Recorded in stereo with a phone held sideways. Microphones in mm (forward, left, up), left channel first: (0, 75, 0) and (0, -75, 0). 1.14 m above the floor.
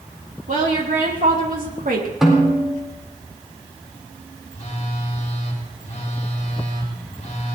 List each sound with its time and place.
0.5 s a woman speaking: 70° right (ahead or behind), 3 m; by 2.1 s 75° right (ahead or behind), 1.9 m
2.2 s a snare drum: centre (ahead or behind), 4 m
4.5 s a phone buzzing: 50° left (ahead or behind), 3.5 m